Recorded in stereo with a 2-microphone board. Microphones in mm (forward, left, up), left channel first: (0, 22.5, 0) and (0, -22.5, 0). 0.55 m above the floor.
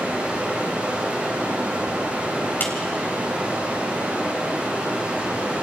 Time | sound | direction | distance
0.0 | running water | 25° right (ahead or behind) | 8.5 m
2.6 | a clap | 50° left (ahead or behind) | 3 m